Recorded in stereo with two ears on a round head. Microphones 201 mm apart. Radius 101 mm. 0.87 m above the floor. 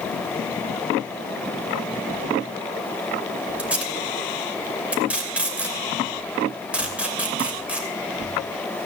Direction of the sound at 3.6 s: 5° right (ahead or behind).